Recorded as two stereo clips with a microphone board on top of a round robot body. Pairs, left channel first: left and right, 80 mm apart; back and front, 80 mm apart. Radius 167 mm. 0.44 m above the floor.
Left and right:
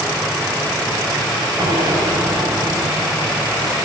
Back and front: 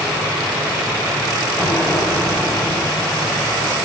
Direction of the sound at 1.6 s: 120° right.